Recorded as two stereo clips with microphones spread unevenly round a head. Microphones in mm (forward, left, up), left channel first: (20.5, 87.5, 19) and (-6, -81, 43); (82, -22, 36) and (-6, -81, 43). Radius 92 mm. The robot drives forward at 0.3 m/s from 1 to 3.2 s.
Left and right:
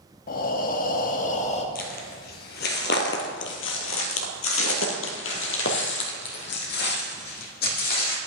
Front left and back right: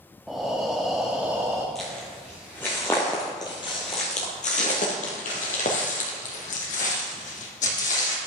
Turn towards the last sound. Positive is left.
turn(degrees=40)